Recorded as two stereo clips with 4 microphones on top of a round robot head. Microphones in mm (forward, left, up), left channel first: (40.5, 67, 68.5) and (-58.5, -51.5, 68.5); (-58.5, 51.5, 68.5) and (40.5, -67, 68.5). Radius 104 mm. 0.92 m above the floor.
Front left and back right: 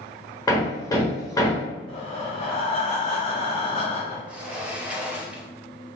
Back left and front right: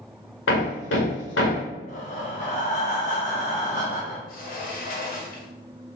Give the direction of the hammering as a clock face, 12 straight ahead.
8 o'clock.